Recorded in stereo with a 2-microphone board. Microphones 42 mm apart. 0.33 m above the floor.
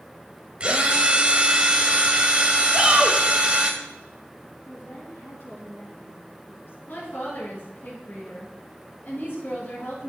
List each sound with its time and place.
0.6 s a drill: 30° right (ahead or behind), 1.4 m
2.7 s a shout: 20° right (ahead or behind), 1.4 m
4.7 s a woman speaking: 70° left (ahead or behind), 3.5 m
6.9 s a woman speaking: 55° left (ahead or behind), 3.5 m